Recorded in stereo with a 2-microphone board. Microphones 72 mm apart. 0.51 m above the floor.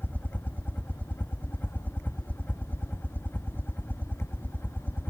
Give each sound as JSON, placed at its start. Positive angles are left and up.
{"t": 0.0, "sound": "a helicopter", "side_deg": 25}